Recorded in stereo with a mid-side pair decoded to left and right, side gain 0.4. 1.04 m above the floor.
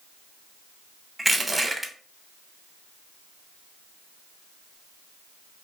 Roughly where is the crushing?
Ahead.